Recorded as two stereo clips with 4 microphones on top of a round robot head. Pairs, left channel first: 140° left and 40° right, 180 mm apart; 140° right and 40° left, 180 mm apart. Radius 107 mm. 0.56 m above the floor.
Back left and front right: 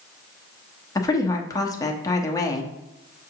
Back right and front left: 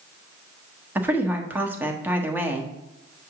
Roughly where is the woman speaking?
Left.